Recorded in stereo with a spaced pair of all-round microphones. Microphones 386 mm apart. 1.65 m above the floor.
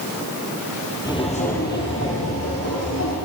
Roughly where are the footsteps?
Centre.